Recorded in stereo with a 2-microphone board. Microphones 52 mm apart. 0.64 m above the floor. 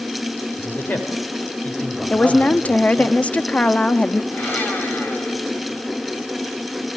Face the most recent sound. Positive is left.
turn(degrees=40)  # may be behind; listen again after turning